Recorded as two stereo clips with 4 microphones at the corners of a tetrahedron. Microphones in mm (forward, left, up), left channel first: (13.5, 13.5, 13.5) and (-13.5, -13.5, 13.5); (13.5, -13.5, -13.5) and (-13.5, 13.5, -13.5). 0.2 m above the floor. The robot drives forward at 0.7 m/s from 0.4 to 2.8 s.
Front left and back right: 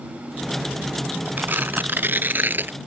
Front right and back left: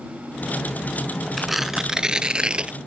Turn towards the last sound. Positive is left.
turn(degrees=-165)